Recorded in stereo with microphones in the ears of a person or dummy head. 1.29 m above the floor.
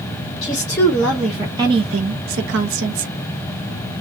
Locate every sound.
0.4 s a woman speaking: 20° left (ahead or behind), 0.9 m; by 3.1 s 70° right (ahead or behind), 0.9 m